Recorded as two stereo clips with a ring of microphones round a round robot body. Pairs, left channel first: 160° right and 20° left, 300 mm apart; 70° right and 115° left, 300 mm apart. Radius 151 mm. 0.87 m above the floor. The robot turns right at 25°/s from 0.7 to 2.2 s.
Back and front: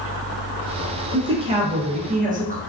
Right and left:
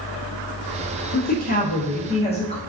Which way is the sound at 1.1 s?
40° right.